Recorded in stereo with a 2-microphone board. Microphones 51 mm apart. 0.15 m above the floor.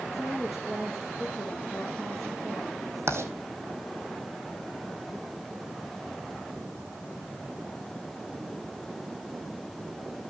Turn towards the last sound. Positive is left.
turn(degrees=-60)  # may be behind; listen again after turning